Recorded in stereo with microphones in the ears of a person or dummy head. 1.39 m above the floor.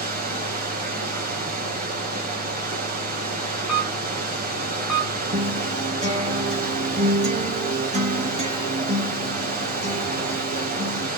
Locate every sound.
0.0 s running water: 45° right (ahead or behind), 1.2 m
3.7 s a camera shutter: 5° right (ahead or behind), 2.5 m
5.3 s a guitar: 35° right (ahead or behind), 1.8 m